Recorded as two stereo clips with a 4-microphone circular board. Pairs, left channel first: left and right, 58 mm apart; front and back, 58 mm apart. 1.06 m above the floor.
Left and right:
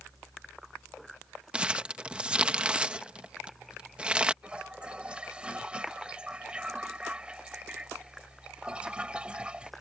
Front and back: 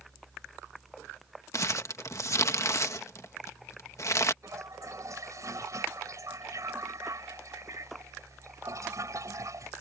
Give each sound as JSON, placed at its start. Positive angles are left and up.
{"t": 1.5, "sound": "crumpling", "azimuth_deg": -20}
{"t": 4.4, "sound": "a toilet flushing", "azimuth_deg": -160}